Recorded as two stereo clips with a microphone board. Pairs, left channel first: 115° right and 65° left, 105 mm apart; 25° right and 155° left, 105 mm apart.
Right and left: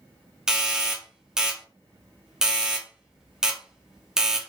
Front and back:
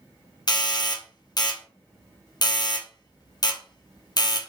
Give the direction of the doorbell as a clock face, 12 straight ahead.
12 o'clock.